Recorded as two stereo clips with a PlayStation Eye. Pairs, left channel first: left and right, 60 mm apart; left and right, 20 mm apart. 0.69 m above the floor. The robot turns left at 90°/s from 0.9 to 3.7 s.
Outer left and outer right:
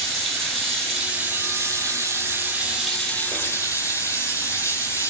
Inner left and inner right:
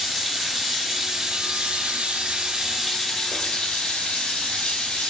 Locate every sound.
0.0 s running water: straight ahead, 4 m; by 5.1 s 110° left, 4 m